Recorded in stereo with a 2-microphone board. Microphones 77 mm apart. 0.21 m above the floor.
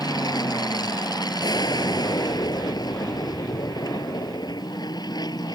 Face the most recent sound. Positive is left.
turn(degrees=70)  # may be behind; listen again after turning